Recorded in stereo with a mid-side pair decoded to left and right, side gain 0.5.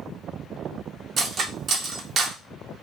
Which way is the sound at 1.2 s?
50° right.